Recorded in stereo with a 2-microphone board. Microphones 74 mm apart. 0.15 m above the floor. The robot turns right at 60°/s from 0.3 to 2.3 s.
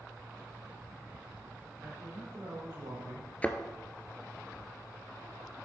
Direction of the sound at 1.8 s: 50° right (ahead or behind).